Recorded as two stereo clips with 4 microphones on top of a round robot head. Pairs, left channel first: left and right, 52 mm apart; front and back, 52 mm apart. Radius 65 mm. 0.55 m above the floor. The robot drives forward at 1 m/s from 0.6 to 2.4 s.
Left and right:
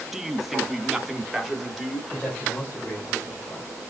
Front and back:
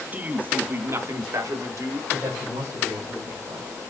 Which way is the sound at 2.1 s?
155° left.